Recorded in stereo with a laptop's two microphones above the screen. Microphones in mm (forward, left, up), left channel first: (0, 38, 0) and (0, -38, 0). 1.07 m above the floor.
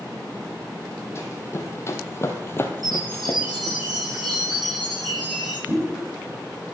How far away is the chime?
About 6 m.